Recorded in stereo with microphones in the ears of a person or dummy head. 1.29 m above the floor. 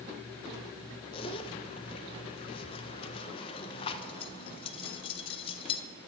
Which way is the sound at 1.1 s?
30° left (ahead or behind).